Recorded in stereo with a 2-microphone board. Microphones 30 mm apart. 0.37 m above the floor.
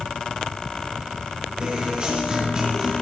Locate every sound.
1.6 s a guitar: 25° right (ahead or behind), 5 m